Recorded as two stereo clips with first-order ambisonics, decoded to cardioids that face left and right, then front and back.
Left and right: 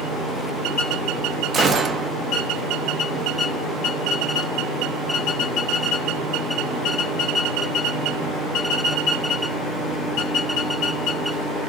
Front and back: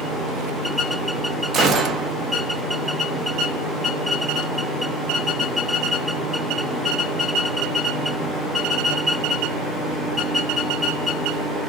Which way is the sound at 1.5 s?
145° right.